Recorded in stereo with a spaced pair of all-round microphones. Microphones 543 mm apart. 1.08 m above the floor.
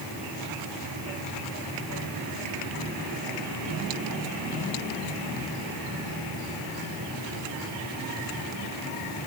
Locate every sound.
Only background noise.